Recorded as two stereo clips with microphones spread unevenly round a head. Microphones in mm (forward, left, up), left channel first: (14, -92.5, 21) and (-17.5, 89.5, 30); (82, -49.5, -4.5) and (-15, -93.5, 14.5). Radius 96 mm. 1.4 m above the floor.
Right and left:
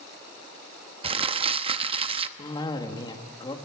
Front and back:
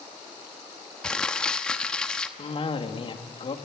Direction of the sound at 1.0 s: 120° left.